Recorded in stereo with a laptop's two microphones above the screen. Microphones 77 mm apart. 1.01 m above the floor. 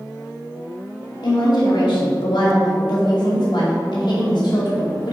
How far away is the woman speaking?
About 1.9 m.